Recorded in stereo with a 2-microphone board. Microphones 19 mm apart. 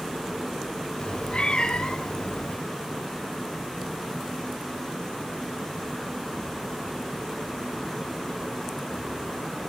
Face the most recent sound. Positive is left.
turn(degrees=50)  # may be behind; listen again after turning